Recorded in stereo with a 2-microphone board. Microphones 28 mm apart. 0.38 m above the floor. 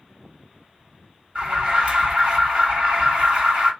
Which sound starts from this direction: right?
An alarm, at 1.4 s.